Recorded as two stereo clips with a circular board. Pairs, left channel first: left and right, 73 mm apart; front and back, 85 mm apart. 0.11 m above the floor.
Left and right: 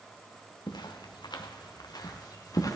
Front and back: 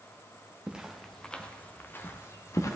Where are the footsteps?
100° left, 1.0 m; by 2.8 s 55° left, 1.7 m.